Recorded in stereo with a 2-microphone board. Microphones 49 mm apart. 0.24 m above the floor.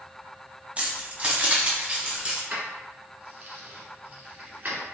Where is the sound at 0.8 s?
30° right (ahead or behind), 1.0 m.